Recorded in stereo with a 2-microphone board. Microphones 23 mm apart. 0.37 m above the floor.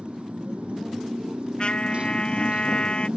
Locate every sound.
0.0 s a motorcycle: 60° right (ahead or behind)
1.6 s a trumpet: 45° left (ahead or behind)